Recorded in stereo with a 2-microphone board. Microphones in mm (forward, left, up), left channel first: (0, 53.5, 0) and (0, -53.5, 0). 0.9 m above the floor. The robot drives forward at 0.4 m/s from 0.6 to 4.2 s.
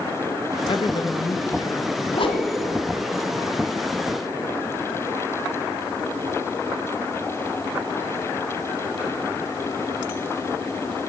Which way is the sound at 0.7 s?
55° left (ahead or behind).